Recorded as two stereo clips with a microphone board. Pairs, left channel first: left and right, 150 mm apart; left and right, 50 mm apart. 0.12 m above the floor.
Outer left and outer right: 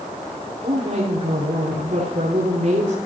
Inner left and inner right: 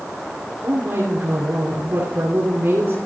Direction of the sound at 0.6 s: 55° right (ahead or behind).